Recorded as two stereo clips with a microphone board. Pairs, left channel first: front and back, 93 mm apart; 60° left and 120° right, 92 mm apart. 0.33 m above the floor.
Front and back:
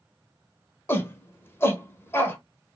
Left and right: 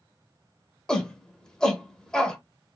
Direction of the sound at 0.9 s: 10° right.